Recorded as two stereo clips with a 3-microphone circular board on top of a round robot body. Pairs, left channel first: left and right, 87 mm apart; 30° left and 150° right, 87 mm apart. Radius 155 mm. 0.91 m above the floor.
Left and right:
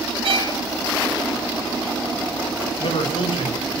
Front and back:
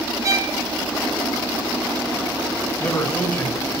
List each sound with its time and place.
0.2 s a violin: 100° right, 3 m
2.8 s a man speaking: 105° left, 5 m